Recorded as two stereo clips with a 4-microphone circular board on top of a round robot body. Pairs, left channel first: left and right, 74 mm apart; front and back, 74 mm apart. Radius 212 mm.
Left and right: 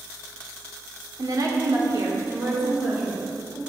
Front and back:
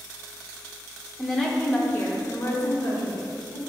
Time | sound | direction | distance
1.2 | a woman speaking | 90° right | 1.3 m